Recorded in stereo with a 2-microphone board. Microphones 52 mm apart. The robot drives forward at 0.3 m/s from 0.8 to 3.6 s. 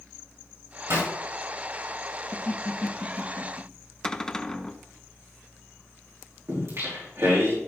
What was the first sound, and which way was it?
A zipper, 70° right (ahead or behind).